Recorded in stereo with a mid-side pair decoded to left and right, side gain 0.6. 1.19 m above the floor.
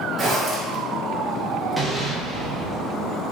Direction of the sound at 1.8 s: 5° right.